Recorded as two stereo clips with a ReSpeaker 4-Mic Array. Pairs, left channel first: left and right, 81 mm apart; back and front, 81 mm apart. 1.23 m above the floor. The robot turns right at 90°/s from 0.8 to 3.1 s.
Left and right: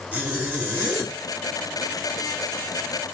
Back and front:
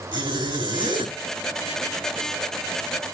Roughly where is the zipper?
Ahead.